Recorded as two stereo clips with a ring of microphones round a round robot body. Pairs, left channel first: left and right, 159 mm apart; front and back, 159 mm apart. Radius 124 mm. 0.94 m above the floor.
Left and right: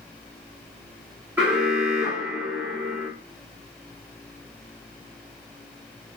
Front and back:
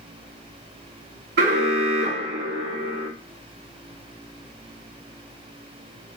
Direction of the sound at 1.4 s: 175° right.